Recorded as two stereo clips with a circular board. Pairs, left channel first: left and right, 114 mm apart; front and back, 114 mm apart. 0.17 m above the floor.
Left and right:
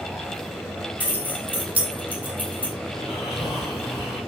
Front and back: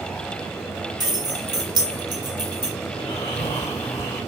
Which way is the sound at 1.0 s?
155° right.